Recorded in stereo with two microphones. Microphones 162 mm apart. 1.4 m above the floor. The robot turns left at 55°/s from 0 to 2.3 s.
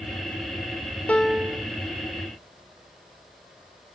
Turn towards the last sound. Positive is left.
turn(degrees=-55)